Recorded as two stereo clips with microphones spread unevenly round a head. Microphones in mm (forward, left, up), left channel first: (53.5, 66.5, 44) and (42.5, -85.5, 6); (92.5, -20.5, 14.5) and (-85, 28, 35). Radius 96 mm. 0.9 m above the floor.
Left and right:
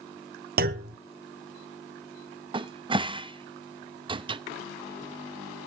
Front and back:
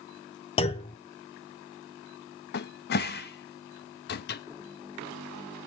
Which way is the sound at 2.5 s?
45° right.